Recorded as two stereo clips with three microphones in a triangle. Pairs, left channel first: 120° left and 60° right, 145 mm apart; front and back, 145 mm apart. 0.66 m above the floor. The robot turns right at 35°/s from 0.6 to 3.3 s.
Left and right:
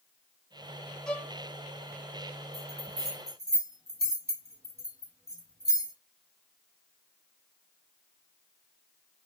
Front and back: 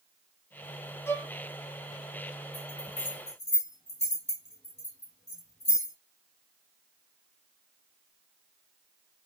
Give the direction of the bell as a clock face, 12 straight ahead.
2 o'clock.